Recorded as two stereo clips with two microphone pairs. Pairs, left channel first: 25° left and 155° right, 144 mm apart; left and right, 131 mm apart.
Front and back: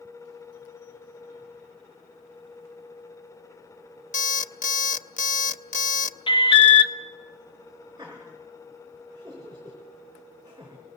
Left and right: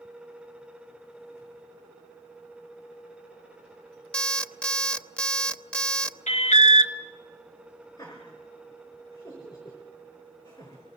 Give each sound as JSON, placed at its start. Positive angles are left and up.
{"t": 4.1, "sound": "an alarm clock", "azimuth_deg": 5, "distance_m": 0.6}
{"t": 6.3, "sound": "an alarm", "azimuth_deg": 75, "distance_m": 0.9}
{"t": 8.0, "sound": "laughter", "azimuth_deg": 140, "distance_m": 4.5}